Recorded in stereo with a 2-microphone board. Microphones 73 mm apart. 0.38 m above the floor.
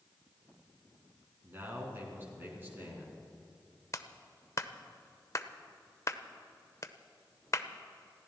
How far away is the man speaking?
About 4 m.